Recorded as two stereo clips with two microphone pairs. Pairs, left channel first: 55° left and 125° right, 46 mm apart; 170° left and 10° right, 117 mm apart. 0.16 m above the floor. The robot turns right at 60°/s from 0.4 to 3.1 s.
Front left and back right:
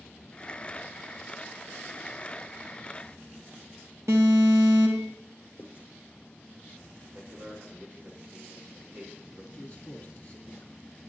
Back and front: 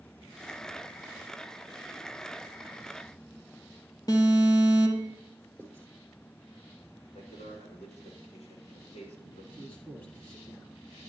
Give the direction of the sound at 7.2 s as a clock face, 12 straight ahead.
6 o'clock.